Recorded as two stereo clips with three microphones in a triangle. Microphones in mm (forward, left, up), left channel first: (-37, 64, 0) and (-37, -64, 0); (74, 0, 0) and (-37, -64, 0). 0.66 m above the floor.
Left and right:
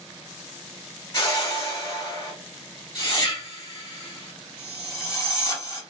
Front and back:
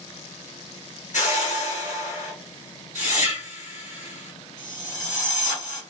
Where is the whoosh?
35° left, 2.0 m.